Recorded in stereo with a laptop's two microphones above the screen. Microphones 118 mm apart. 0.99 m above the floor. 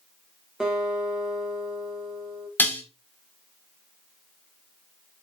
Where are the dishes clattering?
15° left (ahead or behind), 0.9 m.